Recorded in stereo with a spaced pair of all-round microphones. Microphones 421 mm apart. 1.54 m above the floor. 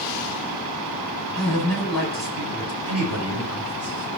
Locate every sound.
1.4 s a man speaking: 40° left (ahead or behind), 6.5 m; by 4.1 s 35° left (ahead or behind), 4 m